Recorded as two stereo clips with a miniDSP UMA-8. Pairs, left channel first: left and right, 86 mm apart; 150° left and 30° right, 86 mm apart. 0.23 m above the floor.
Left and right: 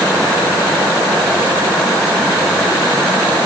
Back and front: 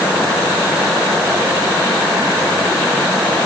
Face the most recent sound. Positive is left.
No sound to turn to.